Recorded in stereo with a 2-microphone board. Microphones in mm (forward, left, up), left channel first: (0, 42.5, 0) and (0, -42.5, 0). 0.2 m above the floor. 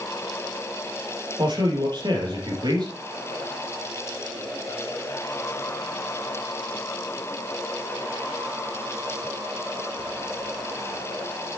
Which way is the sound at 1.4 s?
60° right (ahead or behind).